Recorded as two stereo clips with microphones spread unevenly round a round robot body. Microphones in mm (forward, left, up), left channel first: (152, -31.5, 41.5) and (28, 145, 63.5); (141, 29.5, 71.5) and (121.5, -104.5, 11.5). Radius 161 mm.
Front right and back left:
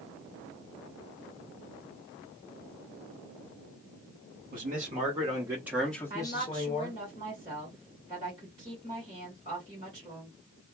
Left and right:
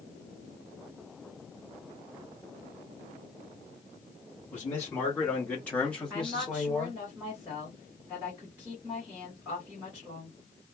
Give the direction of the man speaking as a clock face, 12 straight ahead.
6 o'clock.